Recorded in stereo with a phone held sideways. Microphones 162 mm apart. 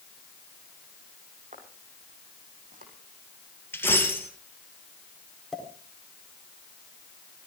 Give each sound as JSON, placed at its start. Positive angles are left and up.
{"t": 1.5, "sound": "footsteps", "side_deg": -50, "distance_m": 6.0}
{"t": 3.7, "sound": "a dropped coin", "side_deg": 15, "distance_m": 2.5}
{"t": 5.5, "sound": "a pop", "side_deg": 0, "distance_m": 4.0}